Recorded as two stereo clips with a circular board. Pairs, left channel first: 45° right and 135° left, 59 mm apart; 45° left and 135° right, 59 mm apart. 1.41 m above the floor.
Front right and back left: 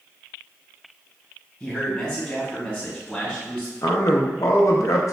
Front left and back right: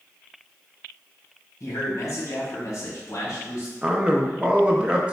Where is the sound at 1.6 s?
20° left, 1.4 m.